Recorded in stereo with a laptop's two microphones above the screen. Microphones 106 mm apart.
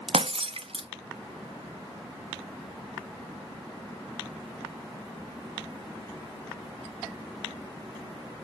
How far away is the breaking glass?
About 0.5 m.